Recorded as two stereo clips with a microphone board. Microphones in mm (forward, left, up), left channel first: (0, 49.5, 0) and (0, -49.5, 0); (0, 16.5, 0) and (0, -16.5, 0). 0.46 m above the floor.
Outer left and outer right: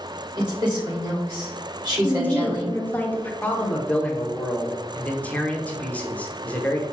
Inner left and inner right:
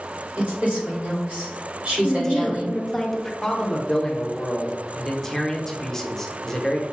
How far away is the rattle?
No rattle in this recording.